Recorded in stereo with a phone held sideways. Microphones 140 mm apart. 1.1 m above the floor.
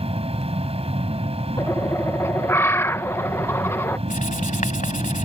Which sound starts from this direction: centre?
A bird, at 1.6 s.